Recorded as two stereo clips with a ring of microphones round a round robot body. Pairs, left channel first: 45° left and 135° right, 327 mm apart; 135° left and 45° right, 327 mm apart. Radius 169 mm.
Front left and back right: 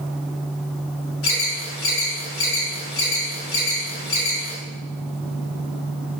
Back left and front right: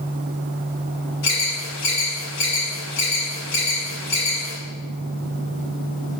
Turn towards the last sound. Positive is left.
turn(degrees=95)